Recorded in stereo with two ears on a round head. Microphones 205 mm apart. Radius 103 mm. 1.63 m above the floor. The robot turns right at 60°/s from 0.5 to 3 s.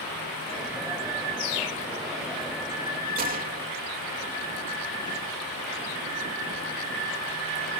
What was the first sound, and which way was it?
A bird, 55° left.